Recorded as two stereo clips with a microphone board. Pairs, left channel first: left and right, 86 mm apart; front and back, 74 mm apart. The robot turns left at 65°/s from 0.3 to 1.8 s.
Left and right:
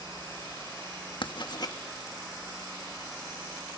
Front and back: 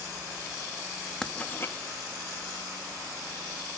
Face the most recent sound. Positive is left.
turn(degrees=45)